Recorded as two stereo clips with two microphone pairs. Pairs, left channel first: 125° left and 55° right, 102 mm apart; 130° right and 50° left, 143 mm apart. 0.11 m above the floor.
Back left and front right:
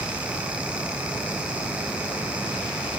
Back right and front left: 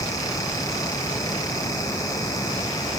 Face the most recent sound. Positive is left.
No sound to turn to.